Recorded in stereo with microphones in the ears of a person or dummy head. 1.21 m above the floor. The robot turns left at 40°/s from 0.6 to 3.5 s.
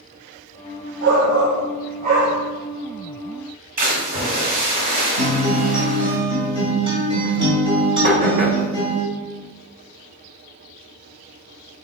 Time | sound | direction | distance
1.0 | a shout | 100° right | 1.0 m
3.8 | a splash | 50° right (ahead or behind) | 2 m
5.2 | a guitar | 30° right (ahead or behind) | 1.8 m
8.0 | knocking | 55° right (ahead or behind) | 1.8 m